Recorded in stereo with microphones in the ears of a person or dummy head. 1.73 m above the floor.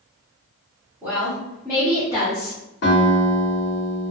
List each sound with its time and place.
1.0 s a woman speaking: 10° right (ahead or behind), 1.0 m; by 2.6 s 45° left (ahead or behind), 0.8 m
2.8 s a guitar: 50° left (ahead or behind), 1.2 m